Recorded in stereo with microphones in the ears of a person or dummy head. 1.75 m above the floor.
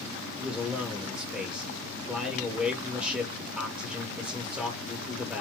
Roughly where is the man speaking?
Centre.